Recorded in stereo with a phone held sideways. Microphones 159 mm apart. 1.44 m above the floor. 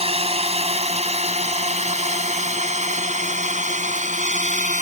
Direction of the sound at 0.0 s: 40° right (ahead or behind).